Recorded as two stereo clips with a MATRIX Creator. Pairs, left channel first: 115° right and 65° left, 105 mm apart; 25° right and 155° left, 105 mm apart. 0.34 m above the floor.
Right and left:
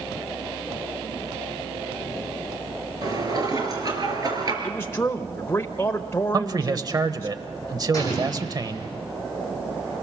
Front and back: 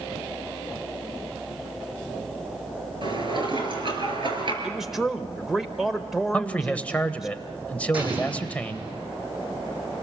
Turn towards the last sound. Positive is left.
turn(degrees=-170)